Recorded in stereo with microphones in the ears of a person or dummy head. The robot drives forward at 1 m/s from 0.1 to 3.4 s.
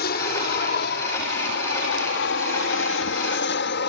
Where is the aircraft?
55° left (ahead or behind).